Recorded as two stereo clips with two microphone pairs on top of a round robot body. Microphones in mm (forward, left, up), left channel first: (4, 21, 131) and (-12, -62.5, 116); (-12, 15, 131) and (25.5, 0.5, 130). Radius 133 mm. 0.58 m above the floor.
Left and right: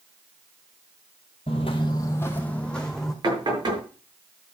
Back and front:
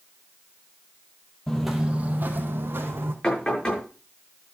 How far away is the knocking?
About 7 m.